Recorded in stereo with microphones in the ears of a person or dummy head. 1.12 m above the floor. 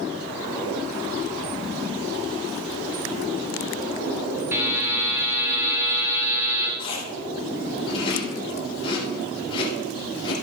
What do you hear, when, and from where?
4.5 s a buzzer: 10° right (ahead or behind), 4 m
6.8 s chewing: 30° left (ahead or behind), 5.5 m